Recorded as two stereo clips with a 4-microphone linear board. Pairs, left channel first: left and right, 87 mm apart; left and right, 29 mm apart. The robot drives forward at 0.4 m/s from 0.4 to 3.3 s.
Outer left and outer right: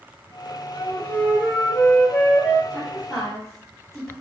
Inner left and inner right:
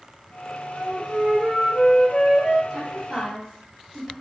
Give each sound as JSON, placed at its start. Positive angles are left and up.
{"t": 0.7, "sound": "a flute", "side_deg": 25, "distance_m": 0.6}
{"t": 2.7, "sound": "a woman speaking", "side_deg": 5, "distance_m": 1.9}